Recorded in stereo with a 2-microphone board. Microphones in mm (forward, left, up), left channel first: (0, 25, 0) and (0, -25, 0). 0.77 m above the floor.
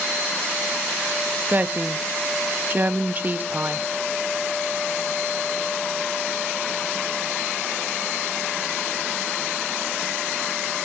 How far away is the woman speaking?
About 0.7 m.